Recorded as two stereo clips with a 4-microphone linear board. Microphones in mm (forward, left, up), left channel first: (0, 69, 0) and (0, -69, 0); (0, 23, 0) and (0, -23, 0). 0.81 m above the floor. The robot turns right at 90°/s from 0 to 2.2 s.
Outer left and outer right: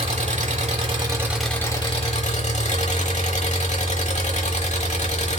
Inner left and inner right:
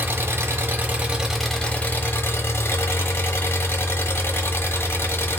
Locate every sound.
0.0 s an engine running: 125° right, 1.0 m; by 5.4 s 70° left, 1.0 m